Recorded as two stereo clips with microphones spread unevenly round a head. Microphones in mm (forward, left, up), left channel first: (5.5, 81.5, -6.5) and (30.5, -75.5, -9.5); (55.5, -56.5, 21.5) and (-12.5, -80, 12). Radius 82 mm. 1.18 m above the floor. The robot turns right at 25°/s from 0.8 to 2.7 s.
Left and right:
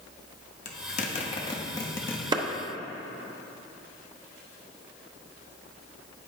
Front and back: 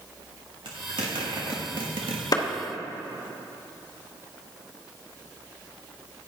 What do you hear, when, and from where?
0.7 s a zipper: 145° left, 1.1 m; by 2.2 s straight behind, 1.1 m
2.3 s a clap: 15° right, 1.0 m